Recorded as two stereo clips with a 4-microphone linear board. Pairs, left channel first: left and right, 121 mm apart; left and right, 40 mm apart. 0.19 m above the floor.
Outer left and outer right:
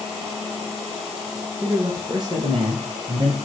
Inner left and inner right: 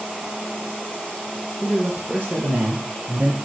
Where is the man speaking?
35° right (ahead or behind), 2.5 m; by 3.4 s 50° right (ahead or behind), 4 m.